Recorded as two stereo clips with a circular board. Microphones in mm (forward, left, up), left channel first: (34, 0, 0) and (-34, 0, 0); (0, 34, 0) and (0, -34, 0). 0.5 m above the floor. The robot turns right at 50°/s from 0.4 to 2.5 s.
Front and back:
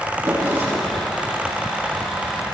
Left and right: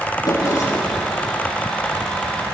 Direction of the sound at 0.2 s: 125° left.